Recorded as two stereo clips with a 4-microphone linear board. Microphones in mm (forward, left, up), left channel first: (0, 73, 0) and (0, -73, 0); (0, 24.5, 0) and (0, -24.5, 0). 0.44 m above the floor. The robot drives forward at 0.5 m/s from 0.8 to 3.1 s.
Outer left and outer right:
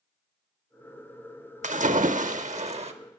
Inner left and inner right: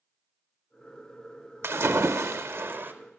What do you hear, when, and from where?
1.6 s a splash: 55° right (ahead or behind), 0.7 m; by 2.9 s 45° right (ahead or behind), 0.8 m